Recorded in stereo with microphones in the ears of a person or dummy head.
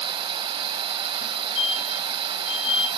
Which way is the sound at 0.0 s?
25° right (ahead or behind).